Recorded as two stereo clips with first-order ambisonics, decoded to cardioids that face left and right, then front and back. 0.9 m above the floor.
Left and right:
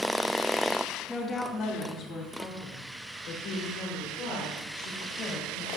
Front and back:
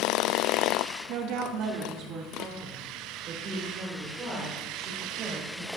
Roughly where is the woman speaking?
Behind.